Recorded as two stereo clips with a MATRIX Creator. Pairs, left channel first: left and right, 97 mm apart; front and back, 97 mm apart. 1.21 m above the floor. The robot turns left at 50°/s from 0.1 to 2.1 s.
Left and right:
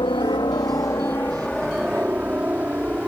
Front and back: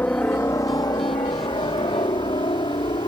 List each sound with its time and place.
0.0 s a helicopter: 70° left; by 3.1 s 15° right